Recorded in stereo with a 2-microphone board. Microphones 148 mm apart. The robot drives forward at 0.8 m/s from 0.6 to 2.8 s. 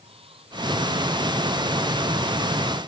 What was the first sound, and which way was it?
Running water, 40° right (ahead or behind).